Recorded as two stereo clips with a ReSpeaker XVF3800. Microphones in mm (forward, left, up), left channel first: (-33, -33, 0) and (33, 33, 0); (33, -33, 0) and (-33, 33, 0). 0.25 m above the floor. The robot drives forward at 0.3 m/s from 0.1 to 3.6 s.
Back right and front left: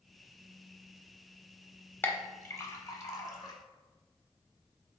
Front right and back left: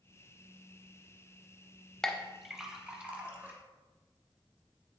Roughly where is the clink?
Behind right.